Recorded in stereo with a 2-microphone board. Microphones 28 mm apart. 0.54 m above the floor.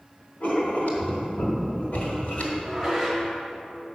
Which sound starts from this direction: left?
Writing, at 0.4 s.